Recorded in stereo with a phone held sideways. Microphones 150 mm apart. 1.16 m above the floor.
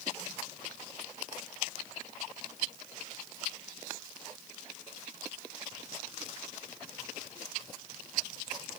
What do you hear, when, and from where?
Only background noise.